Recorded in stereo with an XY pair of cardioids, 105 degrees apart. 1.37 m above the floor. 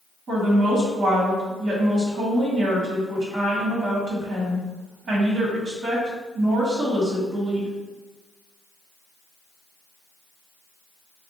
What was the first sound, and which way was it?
A woman speaking, 50° right.